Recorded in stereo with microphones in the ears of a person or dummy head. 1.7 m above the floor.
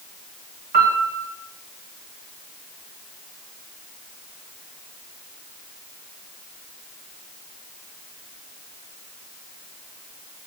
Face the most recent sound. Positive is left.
turn(degrees=-50)  # may be behind; listen again after turning